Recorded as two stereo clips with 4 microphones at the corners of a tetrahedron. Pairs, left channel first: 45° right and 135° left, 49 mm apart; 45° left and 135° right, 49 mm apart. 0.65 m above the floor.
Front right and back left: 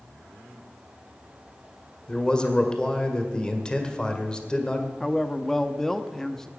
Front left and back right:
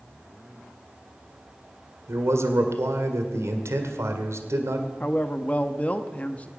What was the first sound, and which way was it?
A man speaking, 115° right.